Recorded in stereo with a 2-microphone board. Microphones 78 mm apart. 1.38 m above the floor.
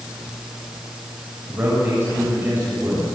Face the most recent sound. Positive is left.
turn(degrees=-30)  # may be behind; listen again after turning